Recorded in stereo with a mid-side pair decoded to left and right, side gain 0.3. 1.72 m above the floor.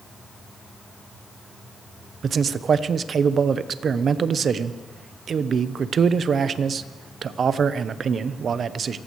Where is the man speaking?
70° right, 0.8 m.